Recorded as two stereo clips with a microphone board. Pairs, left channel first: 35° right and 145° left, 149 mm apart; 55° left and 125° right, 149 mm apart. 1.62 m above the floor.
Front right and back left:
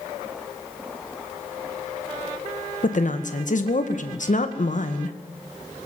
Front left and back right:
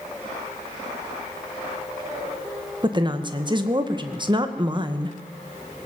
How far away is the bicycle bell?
No bicycle bell in this recording.